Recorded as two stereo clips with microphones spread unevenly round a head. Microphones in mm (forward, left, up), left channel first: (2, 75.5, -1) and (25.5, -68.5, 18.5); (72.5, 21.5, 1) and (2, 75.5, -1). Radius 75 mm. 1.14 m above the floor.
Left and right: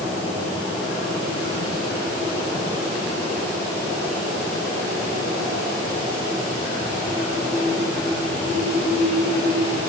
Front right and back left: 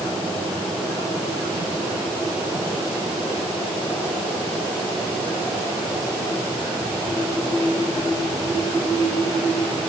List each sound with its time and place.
Only background noise.